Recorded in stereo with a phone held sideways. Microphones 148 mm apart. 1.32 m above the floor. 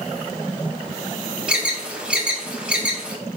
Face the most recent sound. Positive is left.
turn(degrees=-5)  # may be behind; listen again after turning